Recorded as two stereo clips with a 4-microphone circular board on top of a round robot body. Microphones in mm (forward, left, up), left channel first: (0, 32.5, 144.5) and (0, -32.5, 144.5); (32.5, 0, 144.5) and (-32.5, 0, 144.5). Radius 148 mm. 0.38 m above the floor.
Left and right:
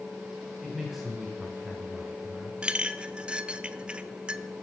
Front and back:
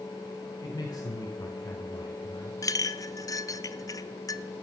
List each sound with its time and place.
0.6 s a man speaking: 5° right, 2 m
2.6 s a clink: 15° right, 0.7 m